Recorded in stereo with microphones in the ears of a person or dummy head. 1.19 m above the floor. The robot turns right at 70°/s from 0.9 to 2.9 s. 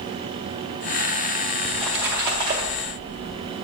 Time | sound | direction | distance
1.6 | a splash | 165° left | 0.7 m